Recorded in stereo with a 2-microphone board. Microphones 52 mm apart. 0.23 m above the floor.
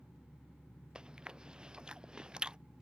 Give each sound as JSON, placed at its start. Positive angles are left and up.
{"t": 0.9, "sound": "chewing", "side_deg": -15}